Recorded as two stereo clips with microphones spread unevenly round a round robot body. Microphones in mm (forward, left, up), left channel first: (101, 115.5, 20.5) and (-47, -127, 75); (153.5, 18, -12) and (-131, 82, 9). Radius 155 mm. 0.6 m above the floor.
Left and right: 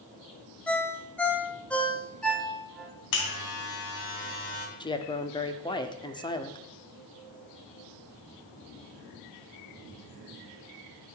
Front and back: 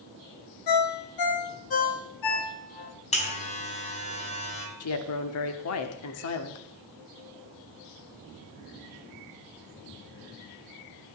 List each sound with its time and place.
0.7 s a ringtone: 25° right, 1.9 m
3.1 s a buzzer: 55° left, 3 m
4.8 s a woman speaking: 5° right, 1.2 m